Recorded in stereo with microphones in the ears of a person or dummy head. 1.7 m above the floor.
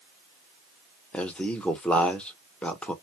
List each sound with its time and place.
1.1 s a man speaking: 10° left (ahead or behind), 1.0 m